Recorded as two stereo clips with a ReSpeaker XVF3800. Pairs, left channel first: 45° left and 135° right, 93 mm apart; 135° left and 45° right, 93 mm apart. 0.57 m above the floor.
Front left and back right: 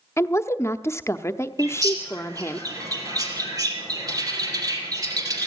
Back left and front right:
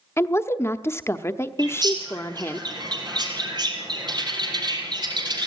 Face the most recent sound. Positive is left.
turn(degrees=-85)